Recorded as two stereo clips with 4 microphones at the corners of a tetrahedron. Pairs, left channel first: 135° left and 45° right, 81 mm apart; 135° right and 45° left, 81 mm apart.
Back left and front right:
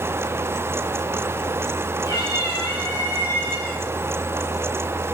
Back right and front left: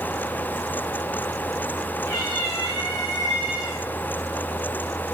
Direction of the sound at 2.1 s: Straight behind.